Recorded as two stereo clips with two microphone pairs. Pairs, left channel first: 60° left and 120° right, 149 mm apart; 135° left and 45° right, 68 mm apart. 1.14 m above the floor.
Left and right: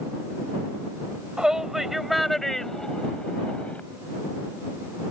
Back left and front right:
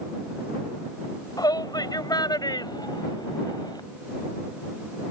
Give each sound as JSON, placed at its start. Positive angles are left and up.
{"t": 1.4, "sound": "a shout", "azimuth_deg": 155}